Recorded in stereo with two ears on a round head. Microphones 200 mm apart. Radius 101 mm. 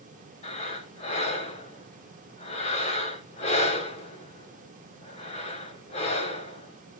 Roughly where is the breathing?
Left.